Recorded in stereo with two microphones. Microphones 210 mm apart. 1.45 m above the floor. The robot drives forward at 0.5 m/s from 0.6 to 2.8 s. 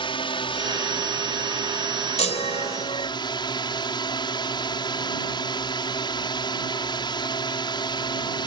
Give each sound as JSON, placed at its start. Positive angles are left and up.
{"t": 0.0, "sound": "a drone", "side_deg": 20}
{"t": 2.2, "sound": "a chime", "side_deg": 30}